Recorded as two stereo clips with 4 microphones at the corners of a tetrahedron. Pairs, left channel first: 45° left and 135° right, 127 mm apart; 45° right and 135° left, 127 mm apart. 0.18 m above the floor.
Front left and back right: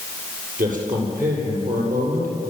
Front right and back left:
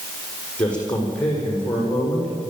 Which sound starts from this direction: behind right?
A man speaking, at 0.6 s.